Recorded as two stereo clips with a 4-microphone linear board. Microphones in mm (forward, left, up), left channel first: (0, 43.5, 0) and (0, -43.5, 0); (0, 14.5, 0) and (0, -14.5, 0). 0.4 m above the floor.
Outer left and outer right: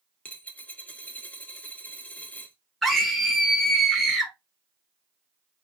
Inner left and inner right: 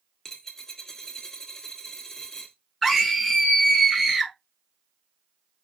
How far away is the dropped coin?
About 0.6 m.